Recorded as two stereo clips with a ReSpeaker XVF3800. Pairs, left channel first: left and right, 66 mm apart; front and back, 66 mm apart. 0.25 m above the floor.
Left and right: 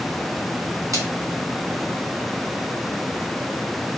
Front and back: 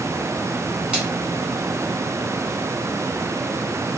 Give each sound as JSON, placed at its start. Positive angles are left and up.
{"t": 0.9, "sound": "a splash", "azimuth_deg": -105, "distance_m": 2.0}